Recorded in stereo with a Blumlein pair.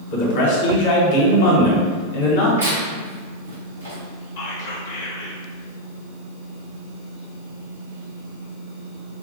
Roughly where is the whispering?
Ahead left.